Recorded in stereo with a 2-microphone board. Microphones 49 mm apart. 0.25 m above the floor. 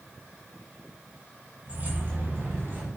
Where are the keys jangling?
30° right (ahead or behind), 1.0 m; by 2.9 s 50° right (ahead or behind), 1.3 m.